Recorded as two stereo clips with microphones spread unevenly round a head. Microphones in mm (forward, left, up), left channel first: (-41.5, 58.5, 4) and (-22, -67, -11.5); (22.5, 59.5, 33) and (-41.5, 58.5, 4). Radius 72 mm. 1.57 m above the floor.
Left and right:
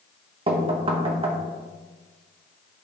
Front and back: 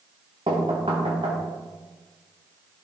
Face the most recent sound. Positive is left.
turn(degrees=-125)